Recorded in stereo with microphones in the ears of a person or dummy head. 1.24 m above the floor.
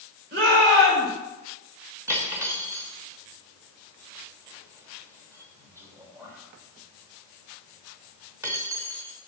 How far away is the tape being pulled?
I don't hear tape being pulled.